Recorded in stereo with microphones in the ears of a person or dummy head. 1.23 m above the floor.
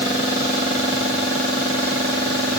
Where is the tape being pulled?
No tape being pulled in this recording.